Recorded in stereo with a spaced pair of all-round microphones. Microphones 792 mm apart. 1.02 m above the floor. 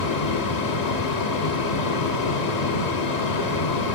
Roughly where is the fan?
Left.